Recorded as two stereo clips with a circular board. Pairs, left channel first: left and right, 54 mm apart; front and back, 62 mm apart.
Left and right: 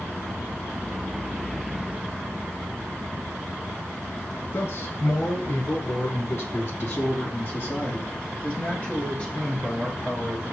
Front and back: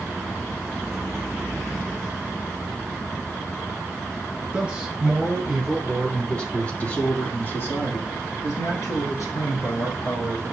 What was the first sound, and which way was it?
A man speaking, 105° left.